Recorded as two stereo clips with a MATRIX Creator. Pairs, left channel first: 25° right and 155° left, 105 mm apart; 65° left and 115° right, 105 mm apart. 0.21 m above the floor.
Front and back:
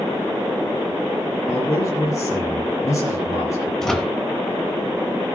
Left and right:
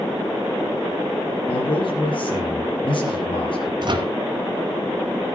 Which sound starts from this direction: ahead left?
A man speaking, at 1.5 s.